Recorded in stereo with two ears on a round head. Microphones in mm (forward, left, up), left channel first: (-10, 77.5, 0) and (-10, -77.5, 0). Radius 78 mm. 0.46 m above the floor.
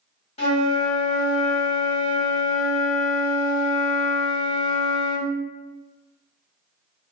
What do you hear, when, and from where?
0.4 s a flute: 40° left (ahead or behind), 1.8 m